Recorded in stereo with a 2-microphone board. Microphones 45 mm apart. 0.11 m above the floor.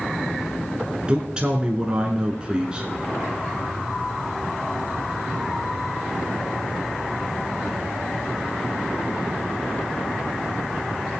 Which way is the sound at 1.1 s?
20° right (ahead or behind).